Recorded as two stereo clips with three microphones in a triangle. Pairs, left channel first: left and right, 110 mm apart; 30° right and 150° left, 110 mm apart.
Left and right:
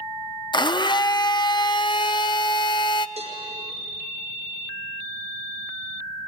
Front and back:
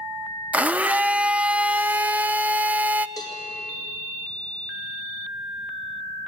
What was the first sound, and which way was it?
A blender, 80° left.